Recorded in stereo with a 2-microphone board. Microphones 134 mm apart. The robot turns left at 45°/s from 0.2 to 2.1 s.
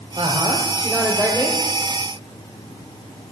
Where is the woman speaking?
140° right, 2.5 m; by 1.6 s 155° left, 2.5 m.